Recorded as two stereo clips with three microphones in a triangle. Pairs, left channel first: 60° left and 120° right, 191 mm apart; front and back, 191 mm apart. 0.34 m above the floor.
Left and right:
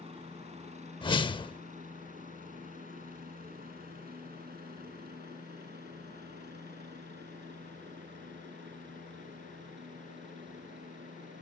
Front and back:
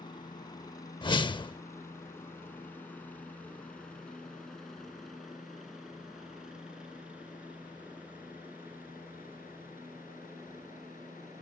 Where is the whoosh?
30° left.